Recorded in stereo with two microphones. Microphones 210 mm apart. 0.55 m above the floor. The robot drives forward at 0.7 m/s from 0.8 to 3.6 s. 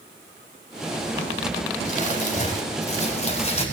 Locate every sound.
1.9 s crumpling: 40° left (ahead or behind), 3 m; by 3.6 s 30° left (ahead or behind), 4 m